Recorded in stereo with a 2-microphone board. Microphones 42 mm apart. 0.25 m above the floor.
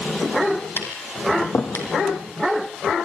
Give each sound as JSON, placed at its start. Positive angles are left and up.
{"t": 0.8, "sound": "tapping", "side_deg": 70, "distance_m": 3.5}